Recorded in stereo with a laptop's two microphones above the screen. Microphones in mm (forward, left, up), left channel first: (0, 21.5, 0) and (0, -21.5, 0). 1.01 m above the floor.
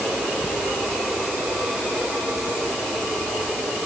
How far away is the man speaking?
No man speaking in this recording.